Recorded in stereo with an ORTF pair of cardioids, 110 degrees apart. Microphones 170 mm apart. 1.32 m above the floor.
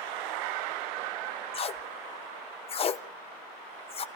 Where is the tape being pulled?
35° left, 0.7 m.